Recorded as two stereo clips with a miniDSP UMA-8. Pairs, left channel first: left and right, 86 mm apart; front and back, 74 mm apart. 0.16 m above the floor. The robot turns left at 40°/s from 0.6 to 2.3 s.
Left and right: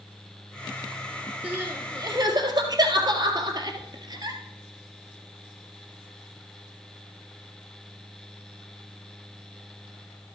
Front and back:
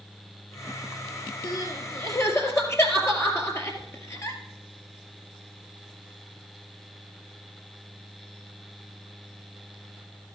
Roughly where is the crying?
Ahead.